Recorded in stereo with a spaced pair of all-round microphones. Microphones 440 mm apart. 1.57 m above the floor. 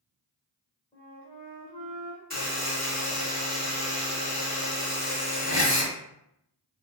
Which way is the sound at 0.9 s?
10° left (ahead or behind).